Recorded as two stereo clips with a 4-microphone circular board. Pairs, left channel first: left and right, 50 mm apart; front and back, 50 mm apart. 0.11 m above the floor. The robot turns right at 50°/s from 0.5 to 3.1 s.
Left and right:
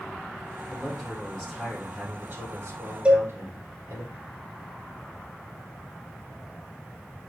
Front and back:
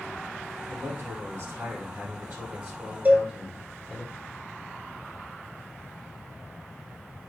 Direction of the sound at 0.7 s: 140° left.